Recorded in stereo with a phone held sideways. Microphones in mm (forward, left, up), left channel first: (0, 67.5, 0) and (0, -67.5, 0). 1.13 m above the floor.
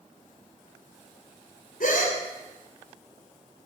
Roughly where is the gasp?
Left.